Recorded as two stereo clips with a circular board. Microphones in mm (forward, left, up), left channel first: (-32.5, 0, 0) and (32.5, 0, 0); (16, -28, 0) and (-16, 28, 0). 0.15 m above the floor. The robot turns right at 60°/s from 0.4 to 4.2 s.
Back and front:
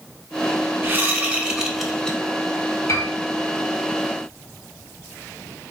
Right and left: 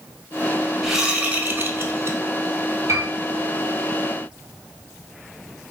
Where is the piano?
145° left, 1.2 m; by 3.1 s 155° left, 1.2 m.